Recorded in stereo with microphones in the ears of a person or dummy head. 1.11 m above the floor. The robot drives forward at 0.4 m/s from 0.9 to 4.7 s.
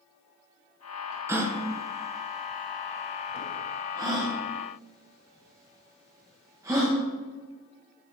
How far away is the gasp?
About 0.7 m.